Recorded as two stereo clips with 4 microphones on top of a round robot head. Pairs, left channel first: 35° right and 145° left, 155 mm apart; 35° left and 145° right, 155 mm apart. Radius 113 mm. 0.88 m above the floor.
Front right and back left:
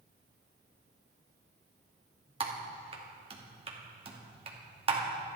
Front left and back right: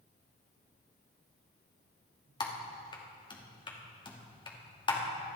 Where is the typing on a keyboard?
95° left, 2.5 m.